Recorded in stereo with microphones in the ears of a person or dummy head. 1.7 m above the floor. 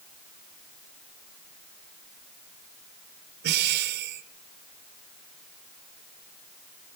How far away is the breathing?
About 1.1 m.